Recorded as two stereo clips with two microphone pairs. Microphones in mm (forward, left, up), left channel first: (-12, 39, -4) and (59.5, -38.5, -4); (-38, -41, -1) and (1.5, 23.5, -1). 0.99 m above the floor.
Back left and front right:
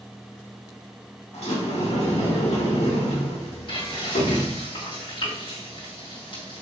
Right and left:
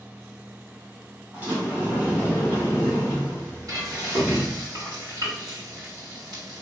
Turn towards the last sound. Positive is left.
turn(degrees=95)